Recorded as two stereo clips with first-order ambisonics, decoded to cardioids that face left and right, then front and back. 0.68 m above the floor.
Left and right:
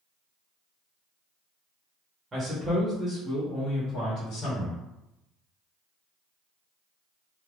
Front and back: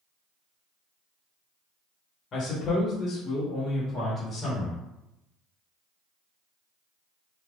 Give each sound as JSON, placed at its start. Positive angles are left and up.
{"t": 2.3, "sound": "a man speaking", "azimuth_deg": -30, "distance_m": 1.2}